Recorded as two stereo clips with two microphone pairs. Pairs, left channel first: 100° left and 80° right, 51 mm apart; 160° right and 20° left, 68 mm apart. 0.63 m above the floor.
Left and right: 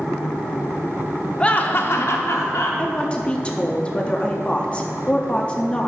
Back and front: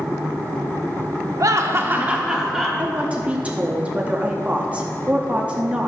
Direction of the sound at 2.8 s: 65° left.